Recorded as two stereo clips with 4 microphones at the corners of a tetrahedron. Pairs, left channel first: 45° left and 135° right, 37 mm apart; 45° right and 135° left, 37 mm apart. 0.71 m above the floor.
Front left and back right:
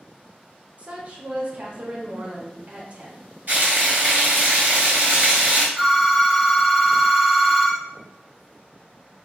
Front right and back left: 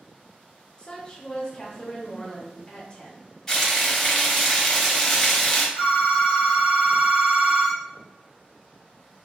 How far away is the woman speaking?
About 0.7 m.